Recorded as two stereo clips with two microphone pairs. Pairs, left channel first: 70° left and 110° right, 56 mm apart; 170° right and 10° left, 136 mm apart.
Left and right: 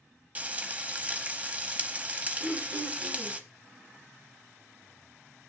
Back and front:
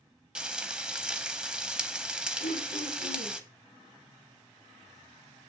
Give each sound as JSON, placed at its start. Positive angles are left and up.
{"t": 0.3, "sound": "frying", "azimuth_deg": -75, "distance_m": 0.8}
{"t": 2.4, "sound": "throat clearing", "azimuth_deg": -145, "distance_m": 5.5}